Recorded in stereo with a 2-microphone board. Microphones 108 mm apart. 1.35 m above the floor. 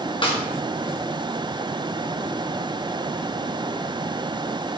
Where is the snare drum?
50° left (ahead or behind), 1.3 m.